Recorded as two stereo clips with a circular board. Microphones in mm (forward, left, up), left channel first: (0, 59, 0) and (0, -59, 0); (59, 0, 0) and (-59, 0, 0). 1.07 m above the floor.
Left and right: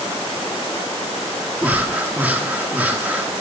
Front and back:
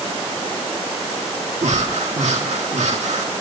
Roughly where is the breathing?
Behind.